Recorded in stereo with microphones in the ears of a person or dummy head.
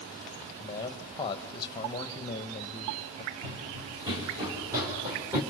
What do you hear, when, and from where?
0.6 s a man speaking: 20° left (ahead or behind), 1.2 m
3.4 s running footsteps: 30° right (ahead or behind), 4 m; by 5.4 s 15° right (ahead or behind), 5 m